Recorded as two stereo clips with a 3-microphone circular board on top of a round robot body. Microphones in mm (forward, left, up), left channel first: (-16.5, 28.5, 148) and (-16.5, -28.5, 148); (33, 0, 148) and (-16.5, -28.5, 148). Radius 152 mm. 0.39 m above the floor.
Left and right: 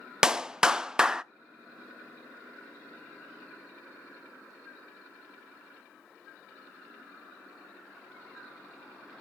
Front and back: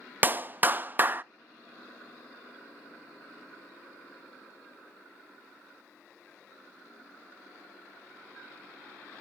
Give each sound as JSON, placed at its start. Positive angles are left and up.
{"t": 0.2, "sound": "a clap", "azimuth_deg": -160, "distance_m": 0.6}